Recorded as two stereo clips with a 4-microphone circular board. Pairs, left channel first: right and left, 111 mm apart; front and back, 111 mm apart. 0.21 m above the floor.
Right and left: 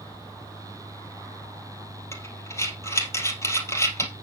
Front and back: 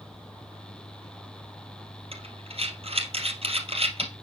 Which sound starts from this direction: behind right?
Breathing, at 2.1 s.